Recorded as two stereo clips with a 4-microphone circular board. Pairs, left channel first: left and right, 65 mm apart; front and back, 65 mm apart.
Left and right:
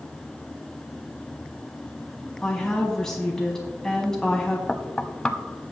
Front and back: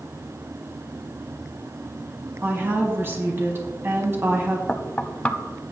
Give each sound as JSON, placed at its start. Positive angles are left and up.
{"t": 2.4, "sound": "a woman speaking", "azimuth_deg": 170, "distance_m": 1.5}
{"t": 4.7, "sound": "knocking", "azimuth_deg": 35, "distance_m": 0.7}